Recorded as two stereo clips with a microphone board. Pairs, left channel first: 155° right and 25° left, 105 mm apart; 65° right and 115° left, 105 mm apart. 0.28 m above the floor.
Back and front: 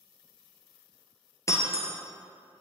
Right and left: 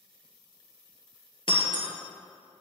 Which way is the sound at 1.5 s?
100° right.